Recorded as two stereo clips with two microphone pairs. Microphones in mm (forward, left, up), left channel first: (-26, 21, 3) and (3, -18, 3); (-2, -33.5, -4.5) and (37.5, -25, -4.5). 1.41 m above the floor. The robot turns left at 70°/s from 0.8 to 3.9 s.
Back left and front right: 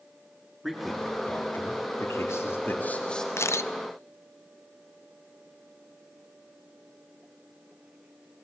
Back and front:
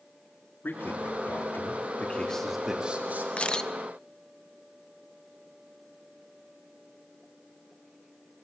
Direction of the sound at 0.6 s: 135° right.